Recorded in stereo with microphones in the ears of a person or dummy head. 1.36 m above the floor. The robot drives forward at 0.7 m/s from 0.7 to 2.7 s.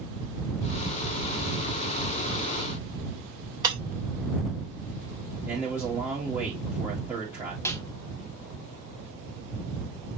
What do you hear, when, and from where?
3.6 s breaking glass: 20° right (ahead or behind), 2.5 m
5.5 s a man speaking: 10° right (ahead or behind), 2 m
7.7 s a snare drum: 15° left (ahead or behind), 0.9 m